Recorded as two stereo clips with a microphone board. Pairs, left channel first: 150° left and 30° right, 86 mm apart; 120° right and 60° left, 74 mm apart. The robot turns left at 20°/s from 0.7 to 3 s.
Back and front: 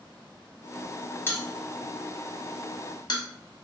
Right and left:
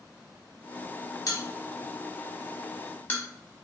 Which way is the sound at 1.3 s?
150° right.